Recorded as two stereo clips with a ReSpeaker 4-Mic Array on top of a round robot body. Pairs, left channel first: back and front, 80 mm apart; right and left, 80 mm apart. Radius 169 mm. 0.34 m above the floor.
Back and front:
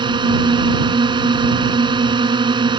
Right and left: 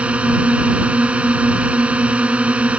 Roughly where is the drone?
Ahead.